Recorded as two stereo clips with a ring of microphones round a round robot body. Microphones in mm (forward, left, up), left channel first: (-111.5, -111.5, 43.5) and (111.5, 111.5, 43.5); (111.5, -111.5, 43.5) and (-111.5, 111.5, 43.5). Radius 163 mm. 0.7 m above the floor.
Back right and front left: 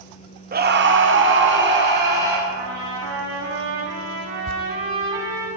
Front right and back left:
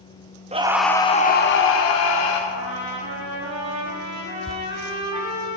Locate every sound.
0.5 s a scream: 80° left, 1.1 m; by 2.4 s 15° right, 2.5 m
2.5 s a trumpet: 95° left, 5 m
4.5 s tearing paper: 45° left, 0.6 m